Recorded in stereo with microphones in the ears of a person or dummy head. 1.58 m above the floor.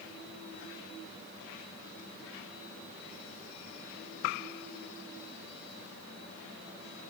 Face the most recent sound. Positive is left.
No sound to turn to.